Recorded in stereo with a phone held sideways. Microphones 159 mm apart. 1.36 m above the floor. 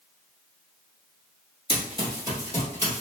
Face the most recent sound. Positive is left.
turn(degrees=15)  # may be behind; listen again after turning